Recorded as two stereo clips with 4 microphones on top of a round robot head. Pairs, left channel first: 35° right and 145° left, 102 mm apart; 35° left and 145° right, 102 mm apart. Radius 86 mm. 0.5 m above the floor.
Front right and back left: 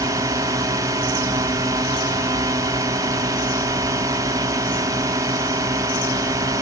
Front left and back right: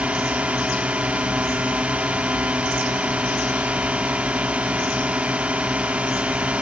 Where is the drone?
145° left.